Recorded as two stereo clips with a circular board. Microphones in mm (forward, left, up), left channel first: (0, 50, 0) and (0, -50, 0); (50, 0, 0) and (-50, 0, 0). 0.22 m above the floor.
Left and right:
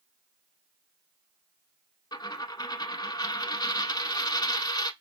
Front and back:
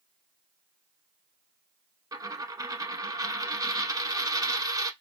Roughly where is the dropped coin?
Behind left.